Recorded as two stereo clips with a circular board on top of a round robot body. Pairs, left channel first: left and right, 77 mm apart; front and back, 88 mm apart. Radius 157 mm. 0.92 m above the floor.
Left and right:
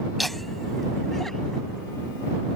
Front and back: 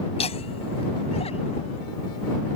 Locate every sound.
0.2 s laughter: straight ahead; by 1.9 s 5° left